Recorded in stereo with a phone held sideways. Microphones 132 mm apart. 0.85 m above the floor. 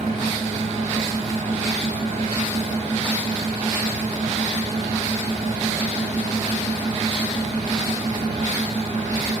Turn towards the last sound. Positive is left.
turn(degrees=-70)  # may be behind; listen again after turning